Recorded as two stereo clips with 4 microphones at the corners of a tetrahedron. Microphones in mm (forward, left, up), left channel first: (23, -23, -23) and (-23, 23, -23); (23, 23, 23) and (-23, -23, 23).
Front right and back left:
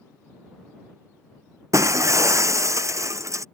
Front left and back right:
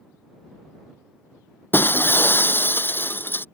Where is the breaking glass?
100° left.